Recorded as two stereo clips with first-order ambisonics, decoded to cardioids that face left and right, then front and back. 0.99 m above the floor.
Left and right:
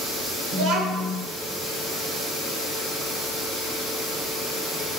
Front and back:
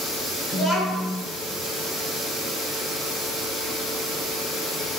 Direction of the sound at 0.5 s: 100° right.